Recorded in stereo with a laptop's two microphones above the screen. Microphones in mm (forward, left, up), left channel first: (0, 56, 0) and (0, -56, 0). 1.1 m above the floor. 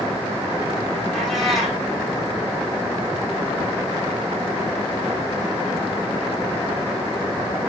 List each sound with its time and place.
1.1 s a cat meowing: centre (ahead or behind), 5.5 m